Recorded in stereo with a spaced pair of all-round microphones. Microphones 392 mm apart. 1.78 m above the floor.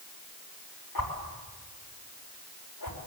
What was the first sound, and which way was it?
A whoosh, 70° left (ahead or behind).